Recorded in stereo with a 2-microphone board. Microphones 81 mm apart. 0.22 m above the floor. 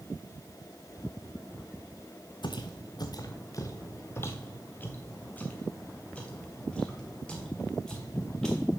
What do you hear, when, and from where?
2.4 s footsteps: 70° left (ahead or behind), 0.9 m; by 8.7 s 5° left (ahead or behind), 3.5 m